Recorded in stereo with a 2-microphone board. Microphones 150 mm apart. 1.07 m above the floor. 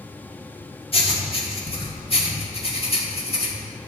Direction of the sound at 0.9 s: 40° left (ahead or behind).